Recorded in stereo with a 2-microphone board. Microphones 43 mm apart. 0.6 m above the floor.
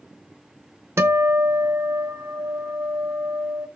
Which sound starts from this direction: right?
A guitar, at 1.0 s.